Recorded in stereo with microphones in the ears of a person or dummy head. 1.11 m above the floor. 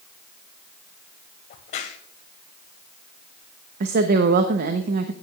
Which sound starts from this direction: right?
A woman speaking, at 3.8 s.